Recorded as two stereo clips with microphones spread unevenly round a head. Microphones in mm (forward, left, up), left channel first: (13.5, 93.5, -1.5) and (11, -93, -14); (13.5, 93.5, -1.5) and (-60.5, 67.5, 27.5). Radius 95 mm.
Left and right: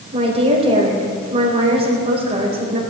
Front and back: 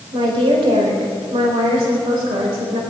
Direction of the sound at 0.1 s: 155° right.